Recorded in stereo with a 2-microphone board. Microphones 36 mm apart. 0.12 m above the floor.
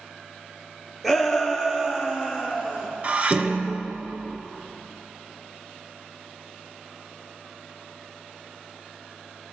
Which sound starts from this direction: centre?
A shout, at 1.0 s.